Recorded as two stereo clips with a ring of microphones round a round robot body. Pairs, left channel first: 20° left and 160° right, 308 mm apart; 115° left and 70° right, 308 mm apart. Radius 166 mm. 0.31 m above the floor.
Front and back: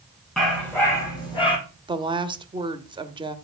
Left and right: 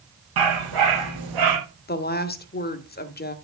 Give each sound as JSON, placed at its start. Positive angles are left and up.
{"t": 0.4, "sound": "a dog barking", "azimuth_deg": -65, "distance_m": 5.0}
{"t": 1.9, "sound": "a woman speaking", "azimuth_deg": 140, "distance_m": 1.3}